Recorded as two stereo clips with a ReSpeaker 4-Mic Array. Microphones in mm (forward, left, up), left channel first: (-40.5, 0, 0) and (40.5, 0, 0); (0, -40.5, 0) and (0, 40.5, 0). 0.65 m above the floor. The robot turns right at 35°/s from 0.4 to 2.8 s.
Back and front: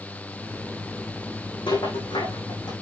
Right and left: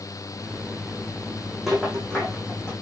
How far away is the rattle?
About 7 m.